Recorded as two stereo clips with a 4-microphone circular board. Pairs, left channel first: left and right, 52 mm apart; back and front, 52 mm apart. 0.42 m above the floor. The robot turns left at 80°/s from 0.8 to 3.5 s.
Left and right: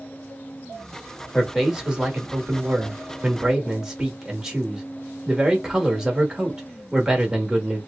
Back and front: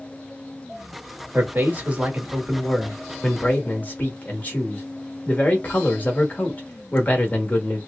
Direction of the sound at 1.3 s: 10° left.